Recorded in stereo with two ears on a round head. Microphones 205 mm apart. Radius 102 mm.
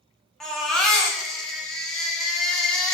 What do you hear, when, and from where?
0.4 s a baby crying: centre (ahead or behind), 0.6 m